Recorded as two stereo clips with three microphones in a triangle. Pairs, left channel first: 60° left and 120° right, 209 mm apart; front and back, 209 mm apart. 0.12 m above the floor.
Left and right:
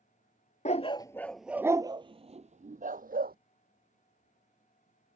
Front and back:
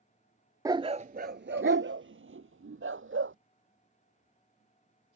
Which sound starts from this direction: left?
A dog barking, at 0.7 s.